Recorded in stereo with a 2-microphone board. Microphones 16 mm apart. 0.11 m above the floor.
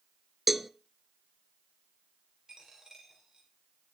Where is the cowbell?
5° right (ahead or behind), 0.7 m.